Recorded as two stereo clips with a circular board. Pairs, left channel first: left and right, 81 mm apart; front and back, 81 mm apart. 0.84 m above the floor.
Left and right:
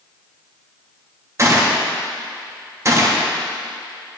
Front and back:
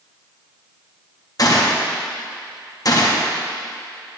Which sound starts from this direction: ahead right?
A gunshot, at 1.4 s.